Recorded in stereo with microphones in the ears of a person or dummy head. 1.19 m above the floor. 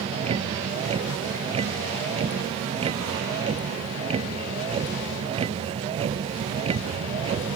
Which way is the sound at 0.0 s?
35° right (ahead or behind).